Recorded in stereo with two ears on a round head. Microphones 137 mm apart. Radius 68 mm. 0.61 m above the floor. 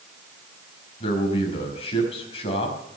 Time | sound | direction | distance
1.0 | a man speaking | 40° left (ahead or behind) | 5 m